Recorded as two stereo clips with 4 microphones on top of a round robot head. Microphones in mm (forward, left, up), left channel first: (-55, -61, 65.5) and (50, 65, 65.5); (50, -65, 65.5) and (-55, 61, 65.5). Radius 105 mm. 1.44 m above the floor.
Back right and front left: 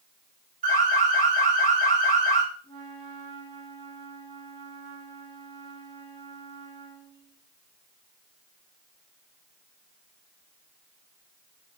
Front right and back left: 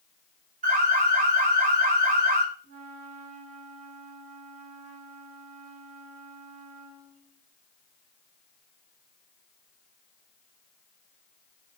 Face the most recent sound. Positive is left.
turn(degrees=75)